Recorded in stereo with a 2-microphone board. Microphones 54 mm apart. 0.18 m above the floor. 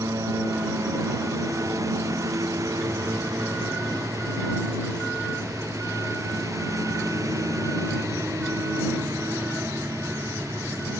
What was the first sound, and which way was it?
A lawn mower, 90° right.